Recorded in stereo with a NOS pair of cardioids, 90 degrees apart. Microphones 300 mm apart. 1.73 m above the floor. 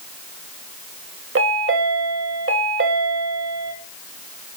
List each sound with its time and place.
1.4 s a chime: 45° right, 1.8 m